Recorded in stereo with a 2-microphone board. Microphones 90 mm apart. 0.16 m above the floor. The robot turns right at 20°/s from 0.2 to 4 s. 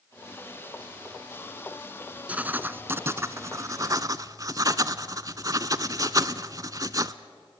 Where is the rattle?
No rattle in this recording.